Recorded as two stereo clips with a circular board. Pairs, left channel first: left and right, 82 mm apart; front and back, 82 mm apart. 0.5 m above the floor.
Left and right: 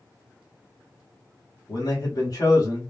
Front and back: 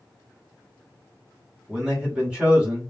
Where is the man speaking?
105° left, 1.3 m.